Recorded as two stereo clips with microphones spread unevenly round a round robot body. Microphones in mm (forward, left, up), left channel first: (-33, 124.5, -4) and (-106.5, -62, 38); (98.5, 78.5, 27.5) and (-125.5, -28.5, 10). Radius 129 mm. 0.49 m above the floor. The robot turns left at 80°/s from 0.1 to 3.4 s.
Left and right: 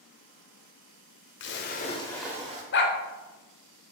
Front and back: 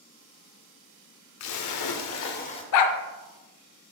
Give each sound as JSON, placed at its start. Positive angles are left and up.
{"t": 1.4, "sound": "a splash", "azimuth_deg": 50, "distance_m": 0.7}
{"t": 2.7, "sound": "a dog barking", "azimuth_deg": 35, "distance_m": 0.6}